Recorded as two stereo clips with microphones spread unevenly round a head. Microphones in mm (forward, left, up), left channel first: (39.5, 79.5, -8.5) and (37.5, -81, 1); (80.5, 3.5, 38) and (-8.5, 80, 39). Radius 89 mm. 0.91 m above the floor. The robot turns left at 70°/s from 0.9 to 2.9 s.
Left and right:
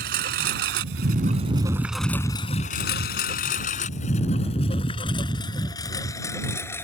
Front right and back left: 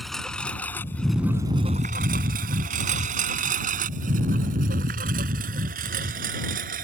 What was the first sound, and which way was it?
A lawn mower, 130° right.